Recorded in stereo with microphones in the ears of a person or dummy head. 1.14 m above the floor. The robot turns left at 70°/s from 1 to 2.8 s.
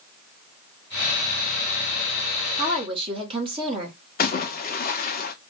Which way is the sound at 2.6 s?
20° right (ahead or behind).